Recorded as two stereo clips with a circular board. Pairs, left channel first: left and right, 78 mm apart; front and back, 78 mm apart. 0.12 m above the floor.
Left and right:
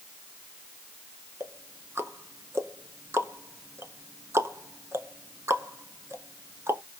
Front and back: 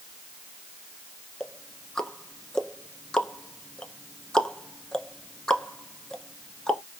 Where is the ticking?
75° right, 0.6 m.